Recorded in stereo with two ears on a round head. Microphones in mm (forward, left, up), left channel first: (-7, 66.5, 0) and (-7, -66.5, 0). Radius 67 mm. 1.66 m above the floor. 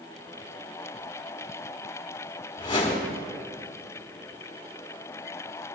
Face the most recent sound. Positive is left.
turn(degrees=35)  # may be behind; listen again after turning